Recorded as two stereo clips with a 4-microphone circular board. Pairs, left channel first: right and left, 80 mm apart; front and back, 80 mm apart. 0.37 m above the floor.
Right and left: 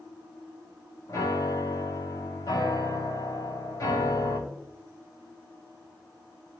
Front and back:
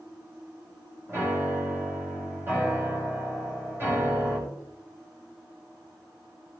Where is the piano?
125° right, 2.5 m.